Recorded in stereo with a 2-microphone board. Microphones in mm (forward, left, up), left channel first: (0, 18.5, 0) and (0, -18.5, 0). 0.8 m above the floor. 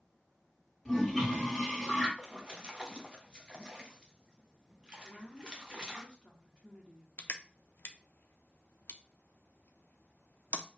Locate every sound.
0.8 s a toilet flushing: 10° left (ahead or behind), 1.8 m
2.2 s a splash: 25° right (ahead or behind), 0.9 m
5.0 s a woman speaking: 25° left (ahead or behind), 1.7 m
7.2 s crushing: 75° left (ahead or behind), 0.5 m